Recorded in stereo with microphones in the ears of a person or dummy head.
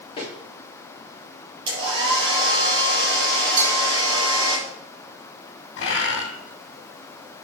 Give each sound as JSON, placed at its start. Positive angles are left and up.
{"t": 0.2, "sound": "footsteps", "side_deg": 30, "distance_m": 4.0}
{"t": 1.7, "sound": "a hair dryer", "side_deg": -30, "distance_m": 4.5}
{"t": 3.6, "sound": "a bell", "side_deg": -50, "distance_m": 4.0}
{"t": 5.8, "sound": "a bird", "side_deg": 65, "distance_m": 2.5}